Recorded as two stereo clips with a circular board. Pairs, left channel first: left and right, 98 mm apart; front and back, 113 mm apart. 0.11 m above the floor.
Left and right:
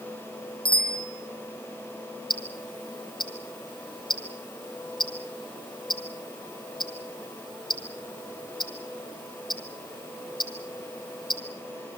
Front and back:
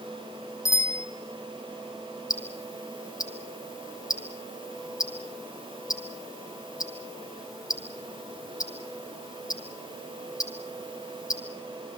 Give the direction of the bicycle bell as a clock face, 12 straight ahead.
10 o'clock.